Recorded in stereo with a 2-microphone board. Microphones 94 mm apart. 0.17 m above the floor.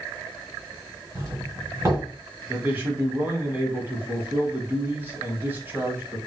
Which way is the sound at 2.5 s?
20° right (ahead or behind).